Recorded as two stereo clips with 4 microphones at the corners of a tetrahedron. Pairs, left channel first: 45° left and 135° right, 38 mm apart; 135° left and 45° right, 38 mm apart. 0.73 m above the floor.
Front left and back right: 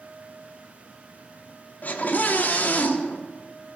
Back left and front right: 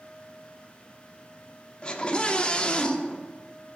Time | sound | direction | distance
1.8 | a scream | 75° left | 1.5 m